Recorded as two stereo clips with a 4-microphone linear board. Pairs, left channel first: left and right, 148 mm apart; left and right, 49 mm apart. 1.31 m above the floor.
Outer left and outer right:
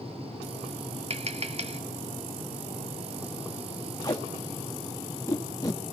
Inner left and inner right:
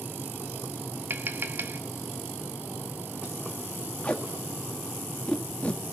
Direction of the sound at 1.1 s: 45° right (ahead or behind).